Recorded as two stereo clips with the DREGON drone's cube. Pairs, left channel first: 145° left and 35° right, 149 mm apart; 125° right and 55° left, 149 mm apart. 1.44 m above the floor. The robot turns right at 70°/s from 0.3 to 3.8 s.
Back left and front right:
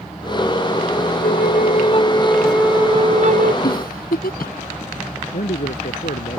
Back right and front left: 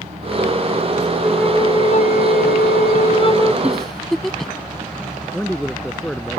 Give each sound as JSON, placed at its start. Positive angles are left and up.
{"t": 1.2, "sound": "a flute", "azimuth_deg": 145}
{"t": 3.6, "sound": "a giggle", "azimuth_deg": 135}
{"t": 5.3, "sound": "a man speaking", "azimuth_deg": 150}